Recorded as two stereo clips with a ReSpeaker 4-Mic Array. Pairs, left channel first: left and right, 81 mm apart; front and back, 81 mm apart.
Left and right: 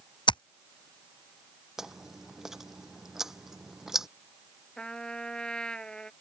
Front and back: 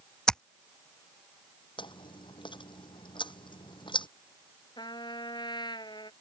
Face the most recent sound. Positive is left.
turn(degrees=10)